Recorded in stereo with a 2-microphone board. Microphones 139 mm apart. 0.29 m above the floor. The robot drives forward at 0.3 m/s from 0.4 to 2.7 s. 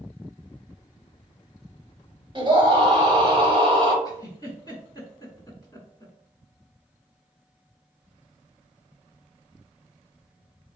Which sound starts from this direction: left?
A giggle, at 4.0 s.